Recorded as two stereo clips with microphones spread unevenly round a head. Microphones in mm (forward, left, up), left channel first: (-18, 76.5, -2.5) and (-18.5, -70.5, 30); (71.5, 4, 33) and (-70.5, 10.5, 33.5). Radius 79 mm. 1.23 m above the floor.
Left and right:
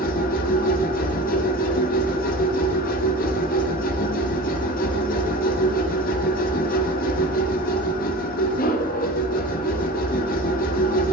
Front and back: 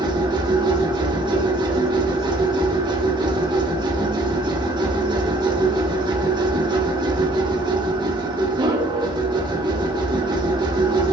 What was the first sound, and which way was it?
A machine running, 115° left.